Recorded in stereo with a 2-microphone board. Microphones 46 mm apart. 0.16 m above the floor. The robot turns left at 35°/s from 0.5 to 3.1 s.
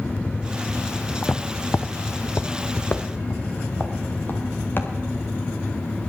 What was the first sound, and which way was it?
Footsteps, 30° left (ahead or behind).